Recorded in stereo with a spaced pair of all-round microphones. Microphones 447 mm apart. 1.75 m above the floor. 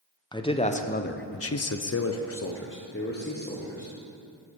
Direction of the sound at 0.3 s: 10° left (ahead or behind).